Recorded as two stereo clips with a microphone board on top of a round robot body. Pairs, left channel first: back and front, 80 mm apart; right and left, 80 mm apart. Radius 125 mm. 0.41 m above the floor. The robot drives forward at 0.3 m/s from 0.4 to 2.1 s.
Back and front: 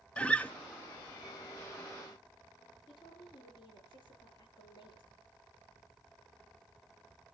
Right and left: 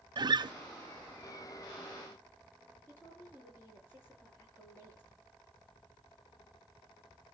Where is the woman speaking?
155° right, 7.5 m.